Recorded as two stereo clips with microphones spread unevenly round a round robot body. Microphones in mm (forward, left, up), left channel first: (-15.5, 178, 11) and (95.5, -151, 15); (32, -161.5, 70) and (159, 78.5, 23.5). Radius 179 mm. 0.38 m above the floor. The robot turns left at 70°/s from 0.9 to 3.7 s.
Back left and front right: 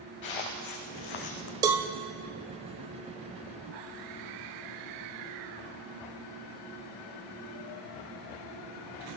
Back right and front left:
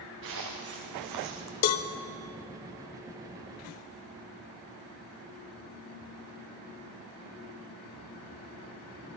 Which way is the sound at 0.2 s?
120° left.